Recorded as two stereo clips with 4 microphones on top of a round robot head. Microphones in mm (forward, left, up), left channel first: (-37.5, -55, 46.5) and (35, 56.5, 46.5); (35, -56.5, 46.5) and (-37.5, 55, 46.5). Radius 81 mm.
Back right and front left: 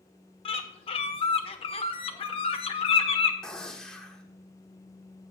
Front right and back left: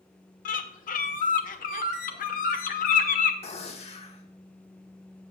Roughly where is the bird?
Right.